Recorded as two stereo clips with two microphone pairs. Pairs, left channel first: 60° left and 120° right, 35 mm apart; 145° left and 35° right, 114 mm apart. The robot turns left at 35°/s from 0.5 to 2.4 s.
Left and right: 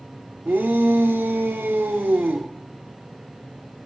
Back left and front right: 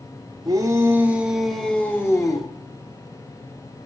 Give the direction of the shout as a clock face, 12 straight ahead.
3 o'clock.